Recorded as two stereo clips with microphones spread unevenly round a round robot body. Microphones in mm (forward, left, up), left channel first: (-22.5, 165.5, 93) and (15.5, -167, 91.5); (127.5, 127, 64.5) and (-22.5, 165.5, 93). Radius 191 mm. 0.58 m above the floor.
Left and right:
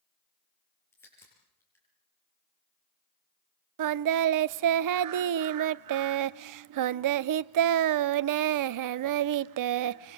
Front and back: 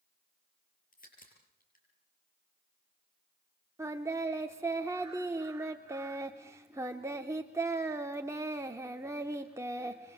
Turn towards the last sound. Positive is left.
turn(degrees=-115)